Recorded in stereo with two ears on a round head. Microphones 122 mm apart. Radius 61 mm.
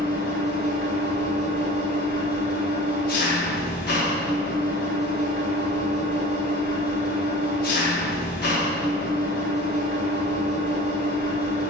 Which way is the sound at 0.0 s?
80° left.